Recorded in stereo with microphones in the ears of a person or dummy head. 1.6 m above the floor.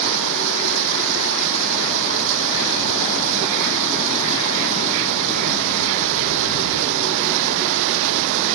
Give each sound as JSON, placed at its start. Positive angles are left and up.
{"t": 0.0, "sound": "running water", "side_deg": -70}